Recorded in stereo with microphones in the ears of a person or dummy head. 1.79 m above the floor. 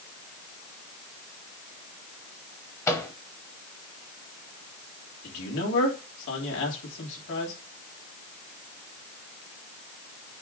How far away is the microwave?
About 1.2 m.